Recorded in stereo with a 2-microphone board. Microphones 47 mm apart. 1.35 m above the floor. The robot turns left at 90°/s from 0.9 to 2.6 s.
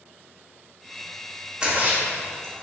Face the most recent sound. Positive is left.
turn(degrees=-75)  # may be behind; listen again after turning